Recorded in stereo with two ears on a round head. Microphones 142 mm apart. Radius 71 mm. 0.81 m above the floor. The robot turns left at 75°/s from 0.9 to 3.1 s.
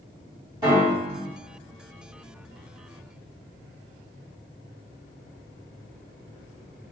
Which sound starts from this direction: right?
A piano, at 0.6 s.